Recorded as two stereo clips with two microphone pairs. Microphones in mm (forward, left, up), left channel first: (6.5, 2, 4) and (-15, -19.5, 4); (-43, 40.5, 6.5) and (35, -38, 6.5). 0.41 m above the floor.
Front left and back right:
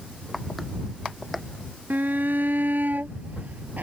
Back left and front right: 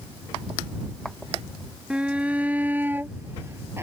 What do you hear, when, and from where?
1.9 s a shout: 125° right; by 3.8 s 110° right